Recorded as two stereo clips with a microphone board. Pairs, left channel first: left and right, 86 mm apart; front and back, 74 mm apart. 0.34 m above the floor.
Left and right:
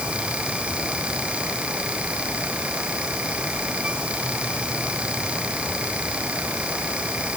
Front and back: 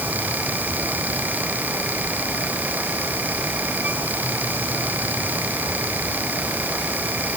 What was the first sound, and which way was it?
Only background noise.